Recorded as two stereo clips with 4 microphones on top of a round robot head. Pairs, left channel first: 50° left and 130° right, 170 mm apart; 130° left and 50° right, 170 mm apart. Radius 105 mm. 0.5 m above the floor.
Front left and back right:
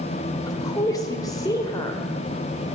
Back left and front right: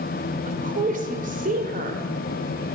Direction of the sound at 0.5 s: 15° right.